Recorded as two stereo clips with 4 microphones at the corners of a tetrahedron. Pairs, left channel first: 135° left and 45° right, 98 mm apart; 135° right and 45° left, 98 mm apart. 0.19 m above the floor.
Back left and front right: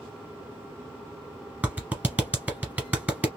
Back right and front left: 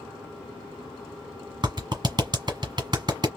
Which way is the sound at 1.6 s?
20° left.